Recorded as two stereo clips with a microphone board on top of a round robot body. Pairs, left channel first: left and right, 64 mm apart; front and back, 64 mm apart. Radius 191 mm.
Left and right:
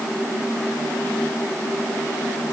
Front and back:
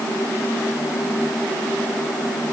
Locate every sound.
Only background noise.